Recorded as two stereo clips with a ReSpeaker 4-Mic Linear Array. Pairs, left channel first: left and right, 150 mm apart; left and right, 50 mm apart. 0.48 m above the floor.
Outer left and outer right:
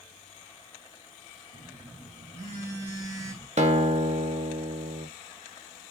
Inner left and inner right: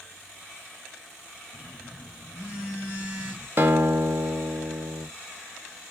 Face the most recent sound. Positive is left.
turn(degrees=-50)  # may be behind; listen again after turning